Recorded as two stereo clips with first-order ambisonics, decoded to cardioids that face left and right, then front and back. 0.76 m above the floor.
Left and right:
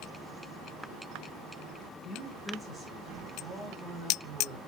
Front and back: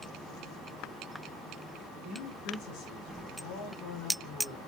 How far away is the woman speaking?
About 6 m.